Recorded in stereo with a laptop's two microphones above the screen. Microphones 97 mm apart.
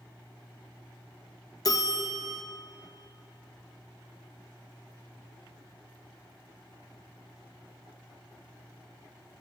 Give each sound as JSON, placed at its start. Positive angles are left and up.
{"t": 1.6, "sound": "a bell", "side_deg": 40, "distance_m": 0.6}